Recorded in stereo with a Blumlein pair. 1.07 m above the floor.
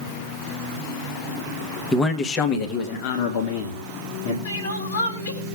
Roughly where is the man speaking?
Ahead.